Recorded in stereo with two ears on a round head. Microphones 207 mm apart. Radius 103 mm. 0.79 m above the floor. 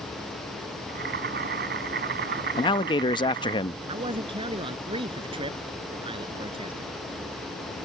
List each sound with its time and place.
0.9 s boiling: 45° right (ahead or behind)
2.6 s a man speaking: 20° left (ahead or behind)
3.9 s a man speaking: 20° right (ahead or behind)